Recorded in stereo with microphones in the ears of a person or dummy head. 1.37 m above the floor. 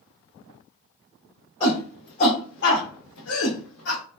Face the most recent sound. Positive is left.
turn(degrees=70)  # may be behind; listen again after turning